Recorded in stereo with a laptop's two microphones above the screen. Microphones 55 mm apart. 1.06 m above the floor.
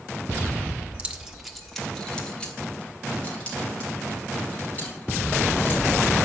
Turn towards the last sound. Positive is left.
turn(degrees=30)  # may be behind; listen again after turning